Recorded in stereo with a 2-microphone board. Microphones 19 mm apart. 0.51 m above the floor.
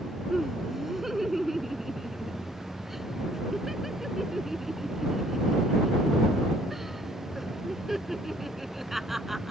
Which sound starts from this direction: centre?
Laughter, at 0.3 s.